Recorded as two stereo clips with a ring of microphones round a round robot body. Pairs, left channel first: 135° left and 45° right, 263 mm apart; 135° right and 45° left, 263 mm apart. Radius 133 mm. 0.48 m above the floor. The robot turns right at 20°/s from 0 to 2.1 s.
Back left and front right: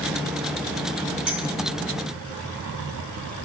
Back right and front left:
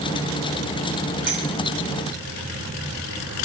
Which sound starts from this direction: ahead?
A clink, at 1.3 s.